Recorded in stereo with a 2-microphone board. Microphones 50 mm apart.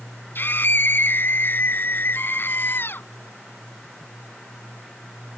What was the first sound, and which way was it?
A scream, 45° left (ahead or behind).